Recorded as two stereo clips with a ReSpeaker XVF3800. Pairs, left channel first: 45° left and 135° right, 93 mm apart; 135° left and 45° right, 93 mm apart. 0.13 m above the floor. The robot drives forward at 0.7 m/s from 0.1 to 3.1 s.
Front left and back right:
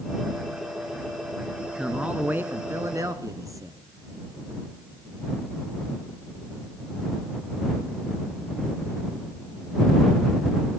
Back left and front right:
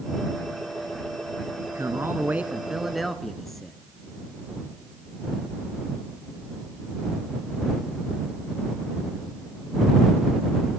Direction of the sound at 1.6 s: 45° right.